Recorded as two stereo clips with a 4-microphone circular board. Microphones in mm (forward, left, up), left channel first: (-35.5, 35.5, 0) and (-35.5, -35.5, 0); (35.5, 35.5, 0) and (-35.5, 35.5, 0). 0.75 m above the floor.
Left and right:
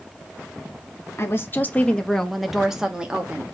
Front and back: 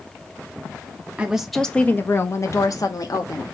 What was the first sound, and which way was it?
A woman speaking, 115° left.